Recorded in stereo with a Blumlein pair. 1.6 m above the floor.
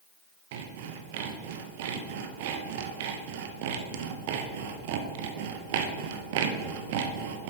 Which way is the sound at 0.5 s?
50° right.